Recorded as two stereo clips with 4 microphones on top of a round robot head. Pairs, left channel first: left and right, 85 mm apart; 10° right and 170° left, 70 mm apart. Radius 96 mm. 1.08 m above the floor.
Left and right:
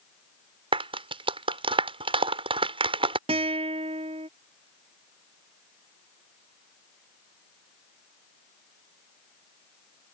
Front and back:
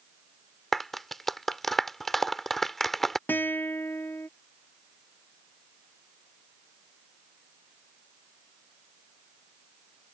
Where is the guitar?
80° right.